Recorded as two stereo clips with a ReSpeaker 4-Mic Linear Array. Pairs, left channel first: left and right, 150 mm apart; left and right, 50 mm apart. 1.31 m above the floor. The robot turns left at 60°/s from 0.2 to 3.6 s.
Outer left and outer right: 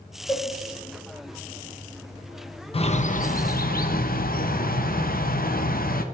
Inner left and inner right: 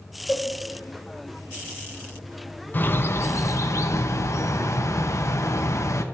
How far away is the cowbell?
About 0.7 m.